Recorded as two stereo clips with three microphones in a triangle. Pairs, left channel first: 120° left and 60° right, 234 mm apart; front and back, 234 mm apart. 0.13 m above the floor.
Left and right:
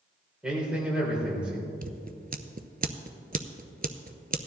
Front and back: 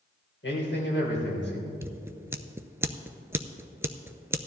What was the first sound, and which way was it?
A man speaking, 25° left.